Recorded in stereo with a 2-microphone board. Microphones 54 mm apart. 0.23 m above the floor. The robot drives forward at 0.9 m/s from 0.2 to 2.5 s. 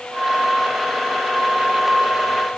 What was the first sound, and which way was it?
Only background noise.